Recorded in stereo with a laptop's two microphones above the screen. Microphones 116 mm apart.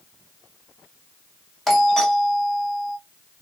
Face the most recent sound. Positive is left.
turn(degrees=5)  # may be behind; listen again after turning